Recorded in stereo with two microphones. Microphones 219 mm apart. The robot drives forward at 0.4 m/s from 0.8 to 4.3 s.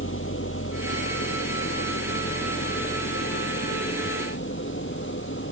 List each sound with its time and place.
0.0 s an engine running: 65° left (ahead or behind); by 5.5 s 60° left (ahead or behind)